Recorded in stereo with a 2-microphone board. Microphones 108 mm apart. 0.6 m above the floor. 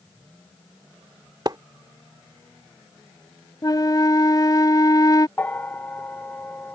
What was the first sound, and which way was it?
A splash, 40° right (ahead or behind).